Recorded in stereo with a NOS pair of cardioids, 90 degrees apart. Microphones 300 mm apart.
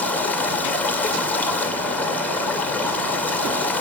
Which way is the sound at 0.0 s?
5° left.